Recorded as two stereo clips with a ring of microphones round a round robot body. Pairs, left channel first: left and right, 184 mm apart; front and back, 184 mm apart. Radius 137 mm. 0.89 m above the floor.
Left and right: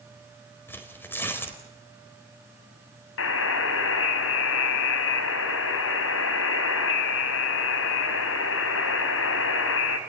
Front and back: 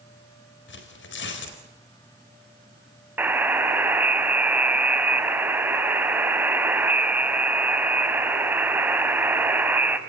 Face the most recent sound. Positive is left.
turn(degrees=100)